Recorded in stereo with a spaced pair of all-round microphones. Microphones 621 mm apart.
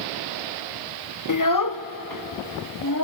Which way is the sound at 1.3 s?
30° left (ahead or behind).